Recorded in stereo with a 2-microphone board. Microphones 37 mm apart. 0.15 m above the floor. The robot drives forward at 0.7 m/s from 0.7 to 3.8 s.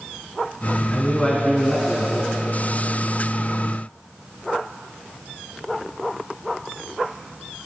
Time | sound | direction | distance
0.9 | a man speaking | 25° left (ahead or behind) | 1.3 m